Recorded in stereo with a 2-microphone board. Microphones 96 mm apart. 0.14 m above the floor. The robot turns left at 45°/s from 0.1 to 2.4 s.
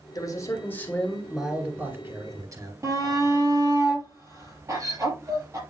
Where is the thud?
No thud in this recording.